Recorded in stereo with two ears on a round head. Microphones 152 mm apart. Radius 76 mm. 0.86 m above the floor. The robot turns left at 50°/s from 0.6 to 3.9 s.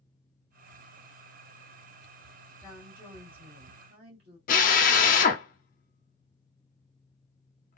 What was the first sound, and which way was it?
A woman speaking, 15° left.